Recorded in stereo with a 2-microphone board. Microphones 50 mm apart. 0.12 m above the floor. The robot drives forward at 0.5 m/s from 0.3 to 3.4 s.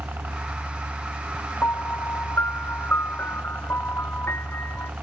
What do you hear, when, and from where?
0.0 s a helicopter: 45° right (ahead or behind); by 5.0 s 40° right (ahead or behind)
1.6 s a piano: 50° left (ahead or behind)